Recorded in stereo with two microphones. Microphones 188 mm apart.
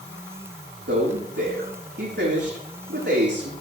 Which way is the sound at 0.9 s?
75° right (ahead or behind).